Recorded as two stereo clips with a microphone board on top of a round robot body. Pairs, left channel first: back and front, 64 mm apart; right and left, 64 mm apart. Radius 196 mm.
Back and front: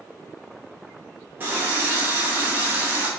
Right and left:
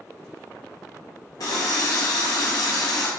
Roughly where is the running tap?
Ahead right.